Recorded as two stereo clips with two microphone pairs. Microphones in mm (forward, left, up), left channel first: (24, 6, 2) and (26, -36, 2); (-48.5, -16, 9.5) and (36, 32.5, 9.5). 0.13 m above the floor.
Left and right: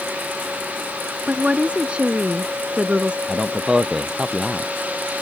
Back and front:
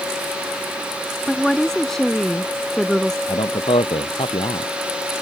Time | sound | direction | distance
1.3 | a woman speaking | 70° right | ?
3.3 | a man speaking | 165° right | ?